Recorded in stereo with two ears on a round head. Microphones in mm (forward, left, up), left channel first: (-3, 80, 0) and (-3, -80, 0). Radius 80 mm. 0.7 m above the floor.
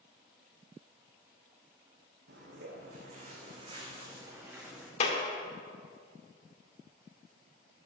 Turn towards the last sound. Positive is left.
turn(degrees=40)  # may be behind; listen again after turning